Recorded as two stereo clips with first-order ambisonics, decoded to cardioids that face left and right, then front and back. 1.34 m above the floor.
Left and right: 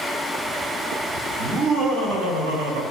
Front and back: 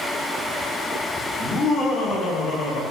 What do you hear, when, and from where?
1.4 s laughter: 70° right, 2.5 m; by 2.8 s 65° right, 1.8 m